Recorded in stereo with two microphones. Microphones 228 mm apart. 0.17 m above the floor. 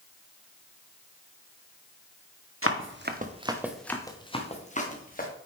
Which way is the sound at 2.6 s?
70° right (ahead or behind).